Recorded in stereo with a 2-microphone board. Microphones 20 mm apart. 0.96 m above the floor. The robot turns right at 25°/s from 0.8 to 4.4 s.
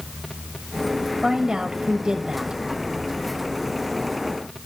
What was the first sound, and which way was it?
A woman speaking, 150° right.